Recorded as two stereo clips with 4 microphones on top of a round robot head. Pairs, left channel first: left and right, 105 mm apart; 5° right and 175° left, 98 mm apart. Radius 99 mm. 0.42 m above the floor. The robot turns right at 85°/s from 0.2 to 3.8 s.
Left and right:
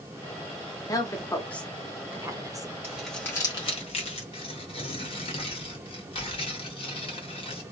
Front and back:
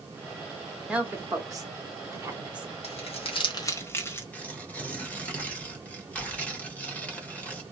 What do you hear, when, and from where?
0.9 s a woman speaking: 105° left, 1.0 m; by 2.7 s 100° right, 1.0 m
2.8 s crumpling: 20° right, 1.1 m; by 4.2 s 65° left, 1.1 m
4.3 s tearing paper: 70° left, 1.3 m